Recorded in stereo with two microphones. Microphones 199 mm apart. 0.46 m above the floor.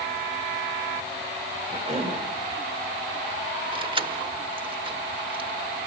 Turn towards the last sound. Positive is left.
turn(degrees=-25)  # may be behind; listen again after turning